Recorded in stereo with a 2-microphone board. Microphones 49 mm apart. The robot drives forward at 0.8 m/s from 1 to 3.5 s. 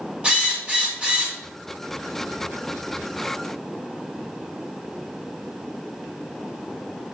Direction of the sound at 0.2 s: 20° right (ahead or behind).